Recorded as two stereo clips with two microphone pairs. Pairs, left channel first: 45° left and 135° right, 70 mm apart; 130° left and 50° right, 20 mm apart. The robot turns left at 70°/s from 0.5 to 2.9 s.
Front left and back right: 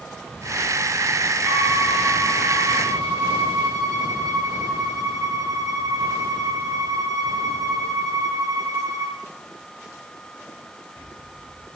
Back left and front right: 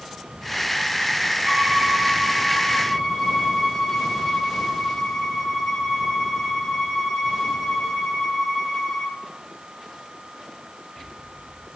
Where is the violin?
65° right, 3 m; by 9.2 s 170° right, 3 m.